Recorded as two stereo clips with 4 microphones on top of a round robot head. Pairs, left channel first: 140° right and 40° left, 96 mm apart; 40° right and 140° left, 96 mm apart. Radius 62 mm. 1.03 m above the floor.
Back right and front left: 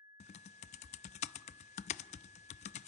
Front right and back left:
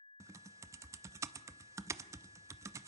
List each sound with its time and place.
0.2 s typing on a keyboard: 155° right, 0.6 m